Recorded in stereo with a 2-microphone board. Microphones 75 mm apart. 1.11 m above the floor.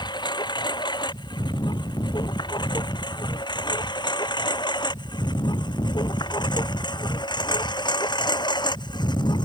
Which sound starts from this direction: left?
A lawn mower, at 0.0 s.